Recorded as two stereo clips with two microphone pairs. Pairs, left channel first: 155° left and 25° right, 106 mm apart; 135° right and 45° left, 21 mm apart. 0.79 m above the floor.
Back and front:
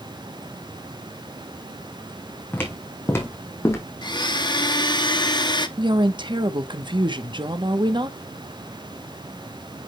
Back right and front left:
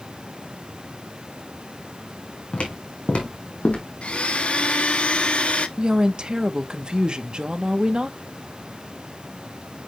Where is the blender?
160° right, 0.8 m.